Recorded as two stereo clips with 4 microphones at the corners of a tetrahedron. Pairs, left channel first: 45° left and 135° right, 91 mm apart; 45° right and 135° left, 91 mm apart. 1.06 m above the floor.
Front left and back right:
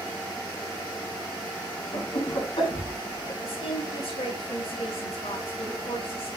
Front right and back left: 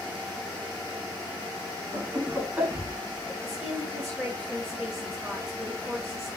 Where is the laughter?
60° left, 9 m; by 3.3 s 65° left, 8.5 m.